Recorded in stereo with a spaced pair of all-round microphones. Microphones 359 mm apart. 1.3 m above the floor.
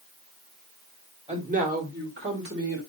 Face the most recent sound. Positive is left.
turn(degrees=-45)  # may be behind; listen again after turning